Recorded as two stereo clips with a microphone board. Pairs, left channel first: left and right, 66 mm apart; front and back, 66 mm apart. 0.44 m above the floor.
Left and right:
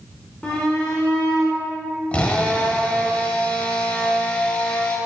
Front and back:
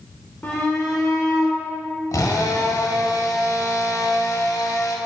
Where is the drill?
20° left, 1.3 m.